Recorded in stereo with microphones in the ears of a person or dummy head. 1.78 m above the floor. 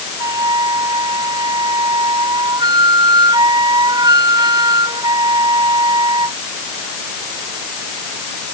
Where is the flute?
20° right (ahead or behind).